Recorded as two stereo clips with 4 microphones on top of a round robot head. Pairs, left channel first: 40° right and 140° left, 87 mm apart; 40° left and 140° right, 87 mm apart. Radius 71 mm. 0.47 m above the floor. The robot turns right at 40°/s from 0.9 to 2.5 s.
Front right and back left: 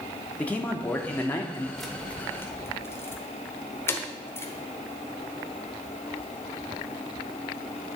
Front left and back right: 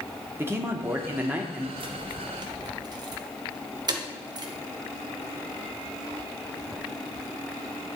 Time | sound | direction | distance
0.4 | a man speaking | 100° right | 0.9 m
1.8 | keys jangling | 130° right | 1.1 m